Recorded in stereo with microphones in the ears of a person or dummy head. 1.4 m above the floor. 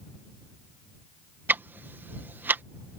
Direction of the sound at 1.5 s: 15° right (ahead or behind).